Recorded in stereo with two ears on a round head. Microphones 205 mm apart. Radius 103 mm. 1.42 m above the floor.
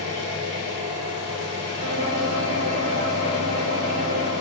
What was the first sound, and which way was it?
An engine running, 50° left (ahead or behind).